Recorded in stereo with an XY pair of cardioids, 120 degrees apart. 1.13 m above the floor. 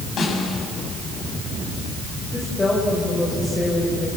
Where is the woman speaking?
25° left, 5 m.